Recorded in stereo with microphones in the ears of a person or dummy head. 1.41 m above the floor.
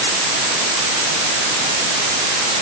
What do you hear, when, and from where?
Only background noise.